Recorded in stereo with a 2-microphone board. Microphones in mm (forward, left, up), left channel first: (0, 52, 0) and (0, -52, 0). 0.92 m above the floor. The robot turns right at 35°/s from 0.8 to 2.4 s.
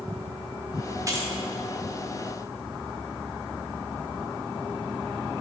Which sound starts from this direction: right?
Keys jangling, at 1.1 s.